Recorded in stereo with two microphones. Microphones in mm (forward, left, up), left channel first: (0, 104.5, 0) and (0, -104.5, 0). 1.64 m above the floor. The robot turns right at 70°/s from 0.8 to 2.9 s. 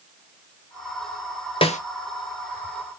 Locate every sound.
1.6 s a snare drum: 25° left (ahead or behind), 0.5 m; by 1.8 s 35° left (ahead or behind), 0.5 m